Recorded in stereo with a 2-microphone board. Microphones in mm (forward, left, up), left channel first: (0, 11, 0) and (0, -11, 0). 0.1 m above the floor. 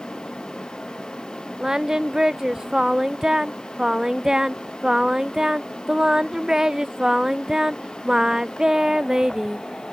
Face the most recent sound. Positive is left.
turn(degrees=-30)  # may be behind; listen again after turning